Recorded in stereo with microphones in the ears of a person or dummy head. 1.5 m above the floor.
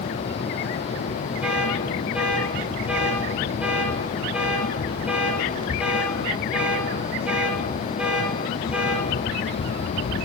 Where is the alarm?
Centre (ahead or behind), 6.5 m.